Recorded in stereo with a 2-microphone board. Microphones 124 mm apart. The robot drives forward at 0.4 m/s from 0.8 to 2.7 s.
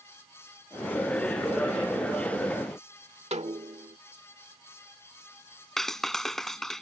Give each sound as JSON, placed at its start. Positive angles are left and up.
{"t": 3.3, "sound": "a snare drum", "side_deg": -70}
{"t": 5.8, "sound": "a clap", "side_deg": 5}